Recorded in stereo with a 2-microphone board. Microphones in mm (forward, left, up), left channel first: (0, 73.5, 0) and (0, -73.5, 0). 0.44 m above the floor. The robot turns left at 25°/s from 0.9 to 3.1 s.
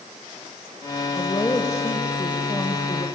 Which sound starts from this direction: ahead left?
A woman speaking, at 1.1 s.